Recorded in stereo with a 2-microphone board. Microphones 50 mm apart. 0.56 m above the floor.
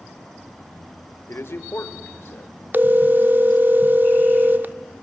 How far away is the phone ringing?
About 0.7 m.